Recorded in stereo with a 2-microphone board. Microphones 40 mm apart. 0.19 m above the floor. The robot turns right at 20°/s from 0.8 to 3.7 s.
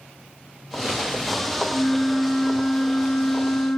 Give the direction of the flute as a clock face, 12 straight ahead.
12 o'clock.